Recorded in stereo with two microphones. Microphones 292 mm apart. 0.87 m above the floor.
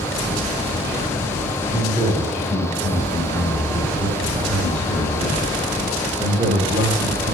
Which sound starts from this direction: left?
A man speaking, at 1.7 s.